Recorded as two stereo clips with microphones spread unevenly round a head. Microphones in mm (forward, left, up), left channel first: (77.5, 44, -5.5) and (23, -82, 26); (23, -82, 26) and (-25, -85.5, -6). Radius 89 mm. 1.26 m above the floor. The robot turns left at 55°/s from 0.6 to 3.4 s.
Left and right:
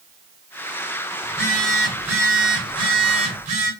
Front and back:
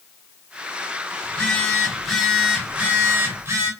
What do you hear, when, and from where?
1.2 s a phone buzzing: 5° right, 1.2 m; by 3.7 s 125° right, 1.2 m